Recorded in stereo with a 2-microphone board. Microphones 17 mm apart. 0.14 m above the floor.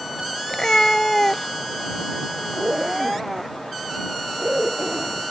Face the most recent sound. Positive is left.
turn(degrees=-55)  # may be behind; listen again after turning